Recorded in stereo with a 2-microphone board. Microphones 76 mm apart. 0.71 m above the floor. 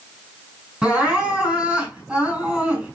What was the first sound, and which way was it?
Crying, 15° right (ahead or behind).